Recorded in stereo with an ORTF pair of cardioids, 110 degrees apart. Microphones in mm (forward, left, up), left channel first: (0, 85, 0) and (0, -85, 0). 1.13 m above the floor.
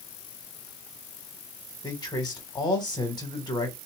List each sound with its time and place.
1.8 s a man speaking: 25° left, 1.7 m